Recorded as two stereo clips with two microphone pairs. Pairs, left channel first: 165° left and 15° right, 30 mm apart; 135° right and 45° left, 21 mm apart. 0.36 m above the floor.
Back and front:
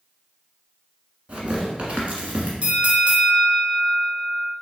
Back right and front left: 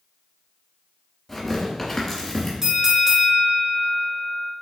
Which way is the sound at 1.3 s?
60° right.